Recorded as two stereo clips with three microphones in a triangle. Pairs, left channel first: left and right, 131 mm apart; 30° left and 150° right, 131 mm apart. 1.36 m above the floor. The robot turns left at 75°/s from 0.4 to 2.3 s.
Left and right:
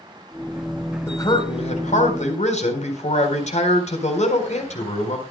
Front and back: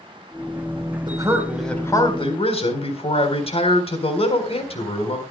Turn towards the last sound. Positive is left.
turn(degrees=70)